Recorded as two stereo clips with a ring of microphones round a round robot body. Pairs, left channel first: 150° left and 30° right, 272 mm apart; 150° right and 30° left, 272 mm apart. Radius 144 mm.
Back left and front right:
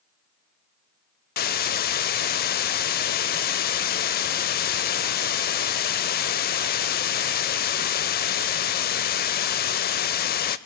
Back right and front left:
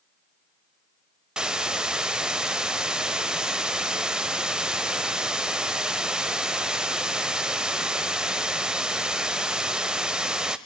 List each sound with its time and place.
1.4 s a hiss: 115° left, 0.5 m